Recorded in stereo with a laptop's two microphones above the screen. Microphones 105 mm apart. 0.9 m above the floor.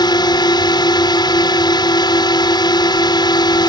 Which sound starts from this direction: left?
A drone, at 0.0 s.